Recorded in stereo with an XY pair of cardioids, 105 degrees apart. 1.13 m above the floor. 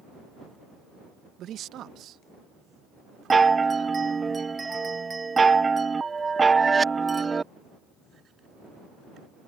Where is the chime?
25° right.